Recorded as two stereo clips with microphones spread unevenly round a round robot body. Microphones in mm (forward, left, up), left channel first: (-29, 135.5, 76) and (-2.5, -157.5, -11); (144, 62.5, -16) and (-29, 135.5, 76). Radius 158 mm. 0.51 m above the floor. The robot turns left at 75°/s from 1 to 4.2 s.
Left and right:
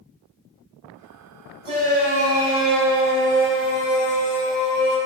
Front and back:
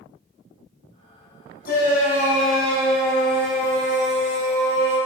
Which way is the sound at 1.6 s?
15° right.